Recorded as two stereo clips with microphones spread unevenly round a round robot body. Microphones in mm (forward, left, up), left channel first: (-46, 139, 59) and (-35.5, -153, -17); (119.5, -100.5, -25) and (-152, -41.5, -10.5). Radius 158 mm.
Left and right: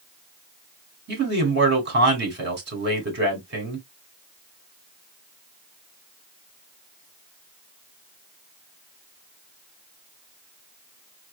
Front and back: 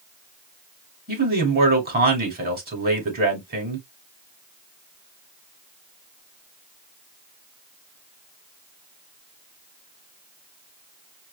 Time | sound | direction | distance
1.1 | a man speaking | 135° right | 2.5 m